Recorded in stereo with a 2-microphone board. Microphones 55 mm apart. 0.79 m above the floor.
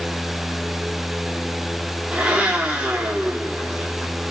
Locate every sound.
2.1 s a blender: 20° right (ahead or behind), 2.5 m